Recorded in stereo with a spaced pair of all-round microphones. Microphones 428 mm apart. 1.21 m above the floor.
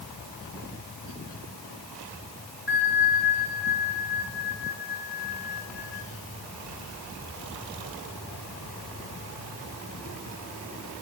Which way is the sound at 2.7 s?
80° left.